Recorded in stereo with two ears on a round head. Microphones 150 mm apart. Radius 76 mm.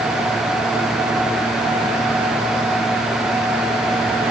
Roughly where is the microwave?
No microwave in this recording.